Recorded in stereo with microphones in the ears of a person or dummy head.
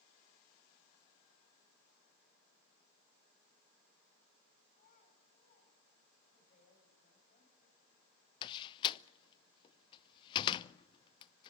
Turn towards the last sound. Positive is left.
turn(degrees=25)  # may be behind; listen again after turning